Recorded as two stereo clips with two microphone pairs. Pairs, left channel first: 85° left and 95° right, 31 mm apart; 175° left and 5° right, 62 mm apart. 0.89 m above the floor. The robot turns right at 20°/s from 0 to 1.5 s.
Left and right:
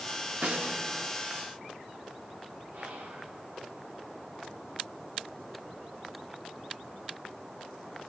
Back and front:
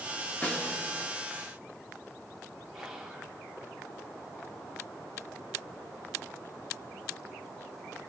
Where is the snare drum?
120° right, 2.5 m; by 0.8 s 110° right, 2.5 m.